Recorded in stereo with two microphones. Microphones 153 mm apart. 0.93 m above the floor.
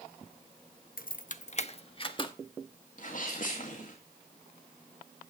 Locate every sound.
1.0 s keys jangling: 70° left (ahead or behind), 0.6 m; by 2.3 s 30° left (ahead or behind), 1.2 m
3.0 s a sneeze: 60° left (ahead or behind), 1.7 m